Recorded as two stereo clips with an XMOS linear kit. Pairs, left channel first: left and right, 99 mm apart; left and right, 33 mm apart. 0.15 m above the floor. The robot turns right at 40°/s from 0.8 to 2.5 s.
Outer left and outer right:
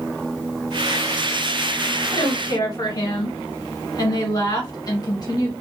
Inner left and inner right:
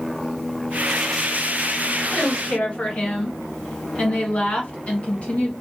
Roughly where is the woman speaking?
Left.